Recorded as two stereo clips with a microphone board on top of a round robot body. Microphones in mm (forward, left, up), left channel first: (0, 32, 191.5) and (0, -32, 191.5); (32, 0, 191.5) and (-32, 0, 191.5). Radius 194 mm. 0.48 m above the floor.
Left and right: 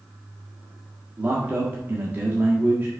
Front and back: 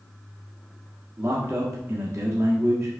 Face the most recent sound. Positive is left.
turn(degrees=-150)